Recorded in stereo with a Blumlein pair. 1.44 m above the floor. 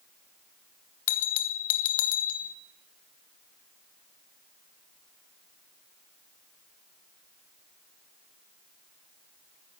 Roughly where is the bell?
Ahead left.